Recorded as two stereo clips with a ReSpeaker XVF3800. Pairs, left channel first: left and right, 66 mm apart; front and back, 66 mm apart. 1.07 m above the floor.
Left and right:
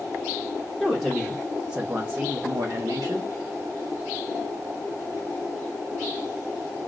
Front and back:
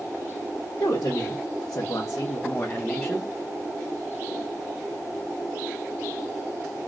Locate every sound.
0.8 s a woman speaking: 5° left, 1.2 m; by 3.3 s 85° right, 0.9 m